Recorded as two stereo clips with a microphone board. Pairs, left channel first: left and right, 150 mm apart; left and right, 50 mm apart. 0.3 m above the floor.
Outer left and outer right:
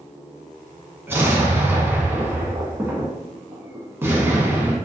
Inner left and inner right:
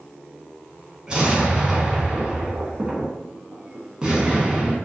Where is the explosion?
15° right (ahead or behind), 0.6 m.